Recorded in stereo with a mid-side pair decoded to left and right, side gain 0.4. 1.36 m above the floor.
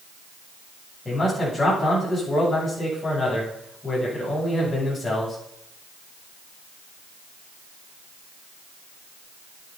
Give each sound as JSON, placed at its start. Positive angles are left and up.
{"t": 1.1, "sound": "a man speaking", "azimuth_deg": 30, "distance_m": 9.0}